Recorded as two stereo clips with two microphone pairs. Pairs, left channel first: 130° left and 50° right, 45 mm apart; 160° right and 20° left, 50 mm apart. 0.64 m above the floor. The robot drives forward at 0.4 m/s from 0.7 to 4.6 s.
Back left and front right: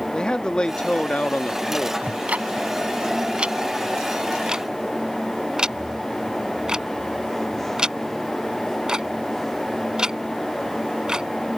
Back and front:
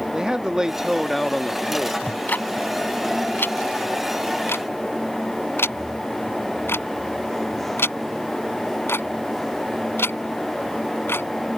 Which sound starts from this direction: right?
Ticking, at 2.0 s.